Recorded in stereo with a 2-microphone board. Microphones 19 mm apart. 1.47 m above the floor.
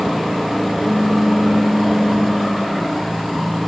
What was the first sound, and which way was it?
A pop, 55° right (ahead or behind).